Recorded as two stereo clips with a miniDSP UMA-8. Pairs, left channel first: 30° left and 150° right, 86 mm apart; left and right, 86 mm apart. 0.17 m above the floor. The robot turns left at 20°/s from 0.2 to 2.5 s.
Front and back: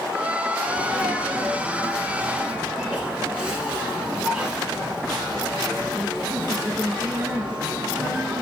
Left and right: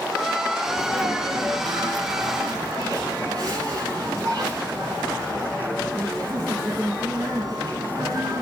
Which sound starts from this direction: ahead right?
A sneeze, at 0.7 s.